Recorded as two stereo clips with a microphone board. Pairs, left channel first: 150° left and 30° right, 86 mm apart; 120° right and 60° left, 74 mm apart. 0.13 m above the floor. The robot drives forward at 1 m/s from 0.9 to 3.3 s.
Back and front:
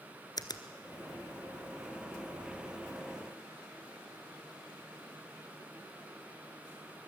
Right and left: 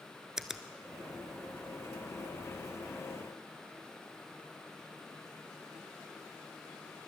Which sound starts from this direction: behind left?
A finger snap, at 0.4 s.